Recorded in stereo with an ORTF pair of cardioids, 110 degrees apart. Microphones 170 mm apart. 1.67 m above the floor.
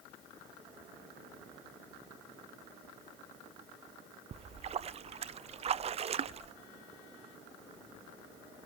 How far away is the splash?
About 0.7 m.